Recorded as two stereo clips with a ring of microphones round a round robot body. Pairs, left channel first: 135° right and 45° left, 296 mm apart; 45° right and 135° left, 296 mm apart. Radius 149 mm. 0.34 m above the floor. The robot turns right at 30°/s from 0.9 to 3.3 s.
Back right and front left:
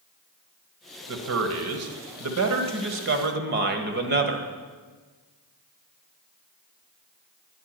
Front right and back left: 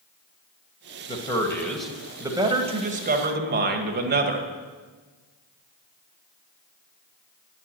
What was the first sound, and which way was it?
A man speaking, 20° left.